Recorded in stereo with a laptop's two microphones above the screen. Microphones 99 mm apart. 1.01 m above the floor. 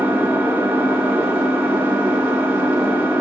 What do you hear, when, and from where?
0.0 s an engine running: 20° right (ahead or behind), 0.8 m